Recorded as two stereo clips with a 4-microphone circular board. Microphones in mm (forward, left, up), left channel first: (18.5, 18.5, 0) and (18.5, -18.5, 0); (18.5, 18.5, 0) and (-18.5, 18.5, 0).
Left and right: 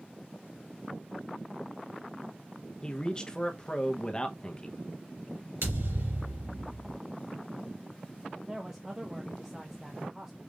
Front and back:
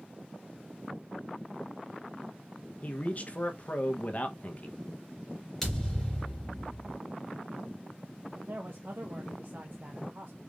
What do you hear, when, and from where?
2.8 s a man speaking: 30° left, 0.9 m
5.6 s a thud: 85° right, 3.5 m
8.3 s a man speaking: 160° right, 0.7 m